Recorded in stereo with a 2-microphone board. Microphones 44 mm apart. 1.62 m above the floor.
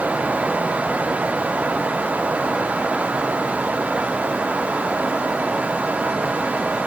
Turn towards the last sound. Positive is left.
No sound to turn to.